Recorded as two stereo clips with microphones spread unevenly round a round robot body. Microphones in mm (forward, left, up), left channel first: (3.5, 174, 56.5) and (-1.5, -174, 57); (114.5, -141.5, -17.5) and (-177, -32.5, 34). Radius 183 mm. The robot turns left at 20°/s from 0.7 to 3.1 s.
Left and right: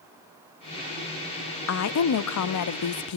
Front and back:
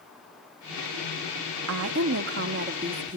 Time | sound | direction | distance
1.7 | a woman speaking | 120° left | 0.7 m